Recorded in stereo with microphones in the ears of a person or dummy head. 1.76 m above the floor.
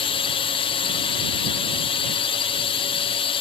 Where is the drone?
30° left (ahead or behind).